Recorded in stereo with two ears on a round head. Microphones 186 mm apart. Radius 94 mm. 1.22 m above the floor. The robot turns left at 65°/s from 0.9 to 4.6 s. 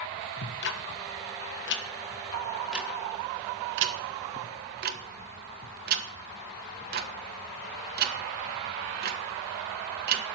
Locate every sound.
0.4 s ticking: 55° left (ahead or behind), 1.3 m; by 10.2 s 45° right (ahead or behind), 1.3 m